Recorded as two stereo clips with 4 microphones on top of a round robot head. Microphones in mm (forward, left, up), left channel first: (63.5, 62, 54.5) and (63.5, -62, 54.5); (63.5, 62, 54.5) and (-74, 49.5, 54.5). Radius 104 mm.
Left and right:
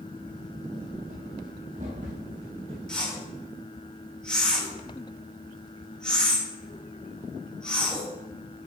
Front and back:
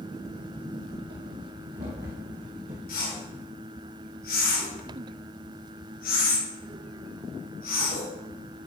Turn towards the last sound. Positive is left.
turn(degrees=5)